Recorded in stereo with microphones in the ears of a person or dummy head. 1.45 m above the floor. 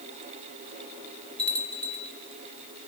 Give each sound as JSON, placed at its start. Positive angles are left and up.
{"t": 1.4, "sound": "a bell", "side_deg": 10, "distance_m": 1.4}